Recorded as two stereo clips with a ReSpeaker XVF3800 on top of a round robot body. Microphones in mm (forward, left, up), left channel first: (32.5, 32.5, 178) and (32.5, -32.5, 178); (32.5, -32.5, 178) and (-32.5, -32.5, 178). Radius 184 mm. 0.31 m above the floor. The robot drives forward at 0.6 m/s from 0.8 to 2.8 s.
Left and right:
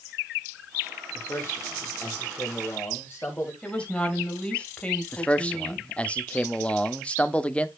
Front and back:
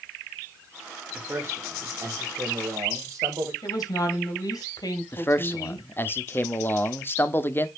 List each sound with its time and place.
1.1 s a man speaking: 125° left, 1.8 m; by 3.5 s 150° left, 2.5 m
3.6 s a woman speaking: 20° left, 3.5 m
5.1 s a man speaking: 30° left, 1.3 m